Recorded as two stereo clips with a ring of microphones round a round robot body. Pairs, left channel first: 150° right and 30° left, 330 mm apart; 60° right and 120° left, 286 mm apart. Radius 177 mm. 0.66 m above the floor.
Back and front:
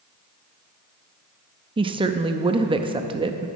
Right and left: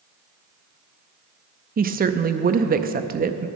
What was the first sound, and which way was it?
A woman speaking, 90° left.